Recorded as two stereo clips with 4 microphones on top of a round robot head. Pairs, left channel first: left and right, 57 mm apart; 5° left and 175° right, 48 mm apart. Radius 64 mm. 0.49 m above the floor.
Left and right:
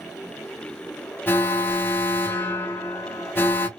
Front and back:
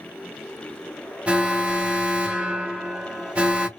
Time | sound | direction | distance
1.3 | an alarm | 130° left | 0.8 m